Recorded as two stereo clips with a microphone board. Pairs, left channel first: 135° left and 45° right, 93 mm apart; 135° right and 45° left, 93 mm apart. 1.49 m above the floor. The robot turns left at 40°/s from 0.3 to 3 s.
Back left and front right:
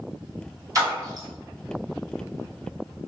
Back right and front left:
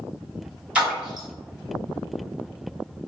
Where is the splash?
30° right, 1.7 m; by 1.3 s 50° right, 1.7 m.